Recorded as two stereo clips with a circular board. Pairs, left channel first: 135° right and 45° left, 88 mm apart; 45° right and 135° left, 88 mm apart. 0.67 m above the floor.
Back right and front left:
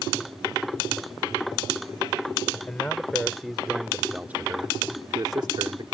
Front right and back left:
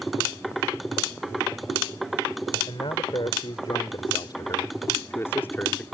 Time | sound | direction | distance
2.7 | a man speaking | 60° right | ?